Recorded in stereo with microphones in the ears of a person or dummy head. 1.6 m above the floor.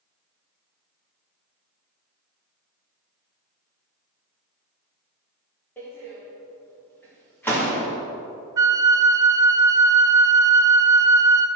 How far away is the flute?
About 0.5 m.